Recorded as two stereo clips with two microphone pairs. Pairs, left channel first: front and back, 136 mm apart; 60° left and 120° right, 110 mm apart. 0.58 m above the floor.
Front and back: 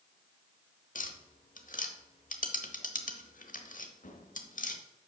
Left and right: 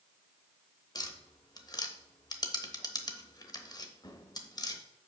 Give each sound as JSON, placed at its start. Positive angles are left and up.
{"t": 0.9, "sound": "tapping", "azimuth_deg": 10, "distance_m": 0.9}